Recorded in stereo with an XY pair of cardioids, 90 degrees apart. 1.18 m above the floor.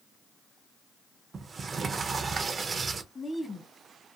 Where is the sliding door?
40° right, 0.5 m.